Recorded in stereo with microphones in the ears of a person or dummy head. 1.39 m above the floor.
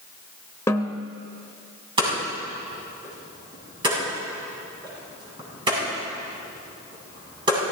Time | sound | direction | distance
0.7 | a snare drum | 15° left (ahead or behind) | 1.1 m
2.0 | hammering | 25° right (ahead or behind) | 7 m